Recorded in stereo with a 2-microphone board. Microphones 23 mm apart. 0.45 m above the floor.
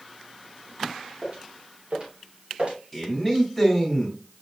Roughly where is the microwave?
No microwave in this recording.